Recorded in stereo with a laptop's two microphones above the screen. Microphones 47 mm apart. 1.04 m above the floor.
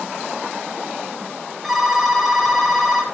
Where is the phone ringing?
5° right (ahead or behind), 5.5 m.